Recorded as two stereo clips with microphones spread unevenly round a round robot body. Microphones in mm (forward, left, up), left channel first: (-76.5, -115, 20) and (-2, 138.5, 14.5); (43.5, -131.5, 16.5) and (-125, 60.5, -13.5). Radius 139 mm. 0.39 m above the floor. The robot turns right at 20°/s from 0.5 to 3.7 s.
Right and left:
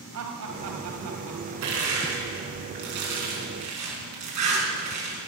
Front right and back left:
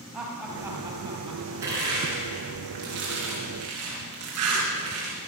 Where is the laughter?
45° left, 3 m; by 1.5 s 65° left, 3 m.